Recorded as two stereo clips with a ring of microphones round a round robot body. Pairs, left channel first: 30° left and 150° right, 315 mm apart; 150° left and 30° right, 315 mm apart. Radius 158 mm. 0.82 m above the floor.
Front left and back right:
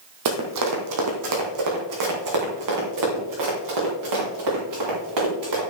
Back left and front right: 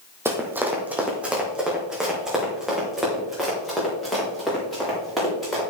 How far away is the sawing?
No sawing in this recording.